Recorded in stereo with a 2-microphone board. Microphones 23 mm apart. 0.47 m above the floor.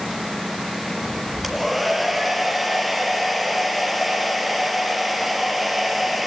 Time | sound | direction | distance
1.4 | a hair dryer | 5° right (ahead or behind) | 4 m